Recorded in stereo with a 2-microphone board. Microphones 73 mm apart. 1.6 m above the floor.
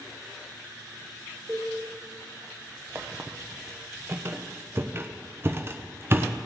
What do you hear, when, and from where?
1.5 s a cowbell: 20° right (ahead or behind), 2.5 m
3.0 s a squeak: 30° right (ahead or behind), 0.6 m